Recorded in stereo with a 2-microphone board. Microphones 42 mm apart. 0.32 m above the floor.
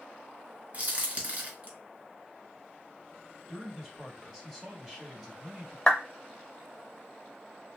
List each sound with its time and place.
0.7 s a crack: 35° right (ahead or behind), 1.2 m
3.5 s a man speaking: centre (ahead or behind), 1.8 m
5.9 s a clap: 20° left (ahead or behind), 0.7 m